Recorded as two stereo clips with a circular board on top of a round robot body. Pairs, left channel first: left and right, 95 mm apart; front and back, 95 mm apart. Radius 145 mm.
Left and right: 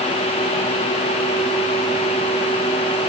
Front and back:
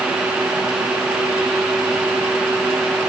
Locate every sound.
Only background noise.